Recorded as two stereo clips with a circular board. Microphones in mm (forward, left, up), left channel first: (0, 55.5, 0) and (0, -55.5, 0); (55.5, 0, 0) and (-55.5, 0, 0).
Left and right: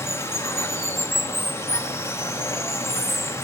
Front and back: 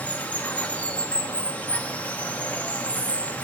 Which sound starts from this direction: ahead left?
Running water, at 0.0 s.